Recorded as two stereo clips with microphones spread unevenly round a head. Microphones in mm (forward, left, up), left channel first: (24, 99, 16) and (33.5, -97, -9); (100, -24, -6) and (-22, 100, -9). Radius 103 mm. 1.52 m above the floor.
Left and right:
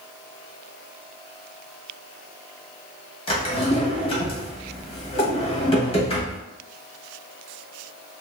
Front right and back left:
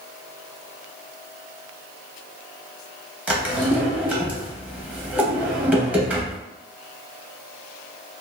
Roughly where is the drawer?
Ahead left.